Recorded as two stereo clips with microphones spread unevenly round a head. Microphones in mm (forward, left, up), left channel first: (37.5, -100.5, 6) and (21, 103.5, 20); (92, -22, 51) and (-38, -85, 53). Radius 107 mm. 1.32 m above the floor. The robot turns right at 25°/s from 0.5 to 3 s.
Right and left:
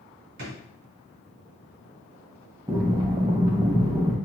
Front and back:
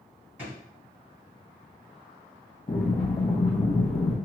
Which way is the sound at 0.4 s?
125° left.